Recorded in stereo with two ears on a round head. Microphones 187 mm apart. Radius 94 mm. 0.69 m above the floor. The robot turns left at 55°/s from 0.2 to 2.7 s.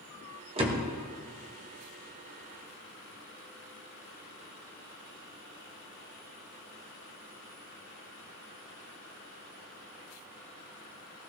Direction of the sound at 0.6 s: 30° right (ahead or behind).